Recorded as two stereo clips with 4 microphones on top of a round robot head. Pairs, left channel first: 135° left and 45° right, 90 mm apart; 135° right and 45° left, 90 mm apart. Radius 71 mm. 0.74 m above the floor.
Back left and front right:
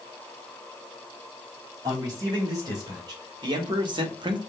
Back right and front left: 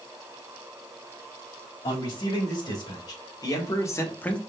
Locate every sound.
1.8 s a man speaking: 90° right, 4 m; by 4.4 s 55° right, 0.8 m